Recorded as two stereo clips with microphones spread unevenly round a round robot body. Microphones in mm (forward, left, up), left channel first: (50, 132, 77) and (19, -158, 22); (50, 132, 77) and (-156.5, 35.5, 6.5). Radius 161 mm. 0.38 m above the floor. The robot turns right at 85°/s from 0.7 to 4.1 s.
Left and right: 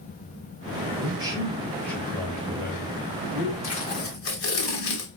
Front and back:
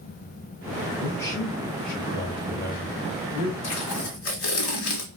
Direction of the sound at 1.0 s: 95° right.